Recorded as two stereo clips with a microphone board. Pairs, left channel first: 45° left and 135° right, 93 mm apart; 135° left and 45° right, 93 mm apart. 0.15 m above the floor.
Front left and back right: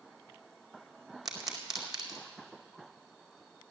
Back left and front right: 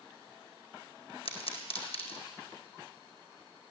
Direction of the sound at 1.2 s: 135° left.